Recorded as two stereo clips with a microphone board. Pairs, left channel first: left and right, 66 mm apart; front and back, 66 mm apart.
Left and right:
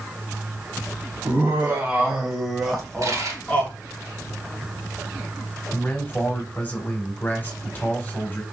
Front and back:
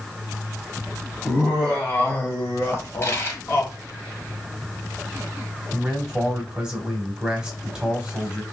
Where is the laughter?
60° right, 1.2 m; by 3.7 s 35° left, 1.4 m.